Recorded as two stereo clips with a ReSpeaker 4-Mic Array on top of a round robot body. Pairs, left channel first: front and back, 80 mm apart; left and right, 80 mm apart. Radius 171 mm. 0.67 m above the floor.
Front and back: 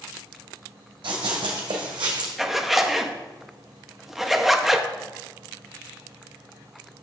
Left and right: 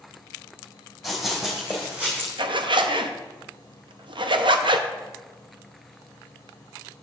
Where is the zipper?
90° right, 0.8 m.